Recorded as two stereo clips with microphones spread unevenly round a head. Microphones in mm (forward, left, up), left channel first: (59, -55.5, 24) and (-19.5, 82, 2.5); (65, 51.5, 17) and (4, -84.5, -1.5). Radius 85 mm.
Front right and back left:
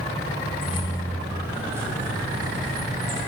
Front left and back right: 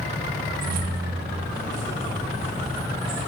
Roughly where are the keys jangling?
Right.